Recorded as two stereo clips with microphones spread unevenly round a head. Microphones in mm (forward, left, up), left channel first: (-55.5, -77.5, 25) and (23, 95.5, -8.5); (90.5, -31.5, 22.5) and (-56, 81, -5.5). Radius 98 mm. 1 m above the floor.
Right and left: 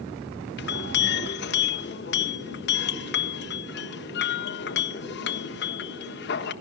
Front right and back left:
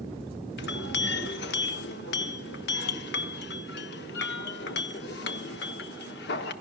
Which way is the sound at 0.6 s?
75° right.